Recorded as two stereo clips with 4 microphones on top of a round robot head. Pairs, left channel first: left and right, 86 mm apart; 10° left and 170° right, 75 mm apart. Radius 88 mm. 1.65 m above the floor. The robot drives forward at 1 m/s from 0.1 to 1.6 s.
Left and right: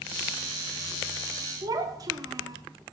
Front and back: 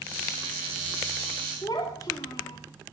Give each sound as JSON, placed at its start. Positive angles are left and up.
{"t": 1.6, "sound": "a child speaking", "azimuth_deg": -45, "distance_m": 2.0}